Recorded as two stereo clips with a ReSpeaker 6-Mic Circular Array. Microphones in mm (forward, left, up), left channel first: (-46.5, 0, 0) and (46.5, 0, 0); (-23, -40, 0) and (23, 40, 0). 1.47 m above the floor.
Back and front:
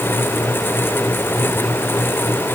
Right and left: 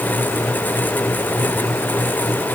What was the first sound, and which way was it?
Only background noise.